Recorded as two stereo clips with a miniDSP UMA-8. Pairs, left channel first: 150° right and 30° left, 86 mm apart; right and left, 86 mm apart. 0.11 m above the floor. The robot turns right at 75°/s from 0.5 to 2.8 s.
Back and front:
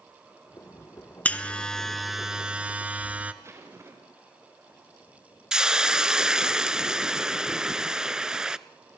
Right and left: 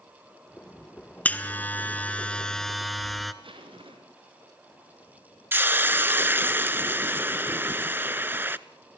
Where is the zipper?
90° left, 4.5 m.